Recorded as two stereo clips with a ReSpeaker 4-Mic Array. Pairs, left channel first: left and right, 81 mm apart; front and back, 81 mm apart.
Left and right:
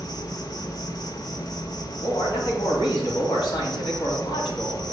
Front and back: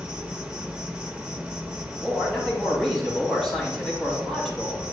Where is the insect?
105° left, 0.7 m.